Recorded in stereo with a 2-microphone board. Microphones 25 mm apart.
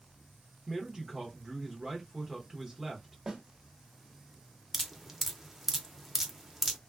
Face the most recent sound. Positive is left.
turn(degrees=-10)  # may be behind; listen again after turning